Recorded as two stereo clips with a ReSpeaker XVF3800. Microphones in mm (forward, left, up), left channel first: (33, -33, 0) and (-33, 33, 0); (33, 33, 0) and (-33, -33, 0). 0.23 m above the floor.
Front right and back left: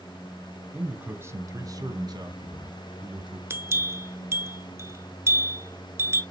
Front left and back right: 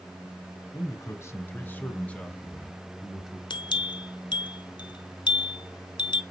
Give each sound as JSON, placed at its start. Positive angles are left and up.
{"t": 0.7, "sound": "a man speaking", "azimuth_deg": 65, "distance_m": 1.3}
{"t": 3.5, "sound": "a bell", "azimuth_deg": 75, "distance_m": 0.7}